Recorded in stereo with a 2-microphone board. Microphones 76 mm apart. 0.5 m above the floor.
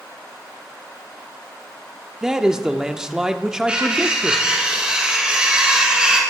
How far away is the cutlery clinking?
About 3.5 m.